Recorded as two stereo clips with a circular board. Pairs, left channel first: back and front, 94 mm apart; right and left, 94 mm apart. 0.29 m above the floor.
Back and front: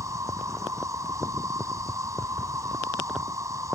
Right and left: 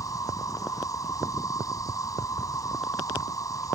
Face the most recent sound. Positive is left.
turn(degrees=-45)